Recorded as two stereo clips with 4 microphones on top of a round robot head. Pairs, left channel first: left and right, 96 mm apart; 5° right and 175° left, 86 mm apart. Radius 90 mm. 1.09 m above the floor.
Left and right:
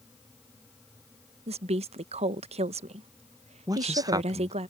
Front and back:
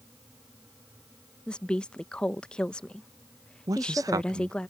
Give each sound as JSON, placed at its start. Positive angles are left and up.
{"t": 1.5, "sound": "a woman speaking", "azimuth_deg": -85}
{"t": 3.7, "sound": "a man speaking", "azimuth_deg": -140}